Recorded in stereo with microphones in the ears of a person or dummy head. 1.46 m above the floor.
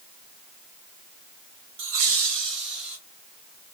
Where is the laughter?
45° right (ahead or behind), 0.6 m; by 3.0 s 50° right (ahead or behind), 1.0 m.